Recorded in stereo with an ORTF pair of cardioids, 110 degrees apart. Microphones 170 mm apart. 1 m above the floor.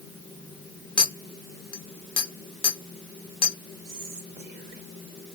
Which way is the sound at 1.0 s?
30° left.